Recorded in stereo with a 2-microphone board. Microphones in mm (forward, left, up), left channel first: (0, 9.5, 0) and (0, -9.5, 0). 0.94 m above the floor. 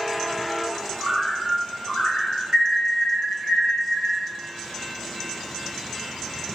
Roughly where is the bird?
Left.